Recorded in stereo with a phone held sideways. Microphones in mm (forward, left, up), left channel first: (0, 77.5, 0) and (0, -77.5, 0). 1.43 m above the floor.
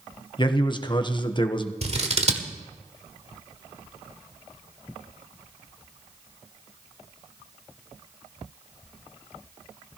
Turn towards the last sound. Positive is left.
turn(degrees=-45)  # may be behind; listen again after turning